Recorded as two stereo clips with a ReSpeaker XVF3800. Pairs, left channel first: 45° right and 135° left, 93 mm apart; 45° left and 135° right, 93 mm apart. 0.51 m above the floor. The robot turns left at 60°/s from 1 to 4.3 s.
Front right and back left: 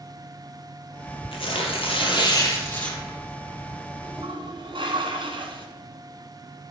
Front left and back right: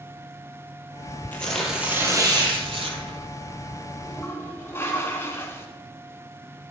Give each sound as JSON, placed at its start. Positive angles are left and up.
{"t": 1.3, "sound": "tearing paper", "azimuth_deg": -25, "distance_m": 2.5}
{"t": 4.0, "sound": "a toilet flushing", "azimuth_deg": 125, "distance_m": 1.5}